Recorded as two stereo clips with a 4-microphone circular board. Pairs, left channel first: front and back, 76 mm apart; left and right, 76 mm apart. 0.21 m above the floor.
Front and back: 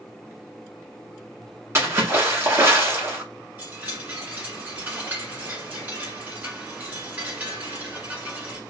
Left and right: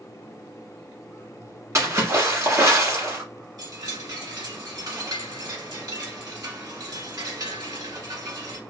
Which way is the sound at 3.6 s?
115° right.